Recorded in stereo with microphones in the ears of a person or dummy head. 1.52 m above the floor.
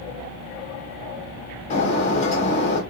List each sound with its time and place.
1.7 s breaking glass: 40° left (ahead or behind), 2 m